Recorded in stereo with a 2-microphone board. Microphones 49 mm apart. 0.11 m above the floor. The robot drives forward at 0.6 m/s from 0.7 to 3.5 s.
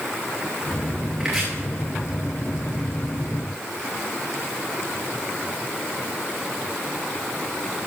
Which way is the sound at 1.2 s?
15° right (ahead or behind).